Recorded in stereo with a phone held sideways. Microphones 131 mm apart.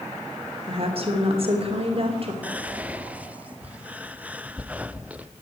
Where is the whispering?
10° right (ahead or behind), 0.5 m.